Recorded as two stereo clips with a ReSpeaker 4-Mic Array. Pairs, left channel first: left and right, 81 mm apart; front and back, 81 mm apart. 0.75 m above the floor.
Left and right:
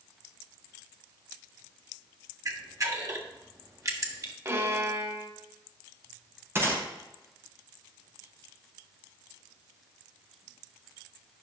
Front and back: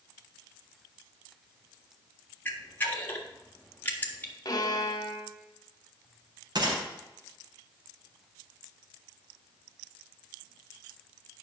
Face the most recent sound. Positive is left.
turn(degrees=-150)